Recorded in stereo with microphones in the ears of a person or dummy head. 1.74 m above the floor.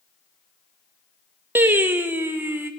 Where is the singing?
10° right (ahead or behind), 0.7 m.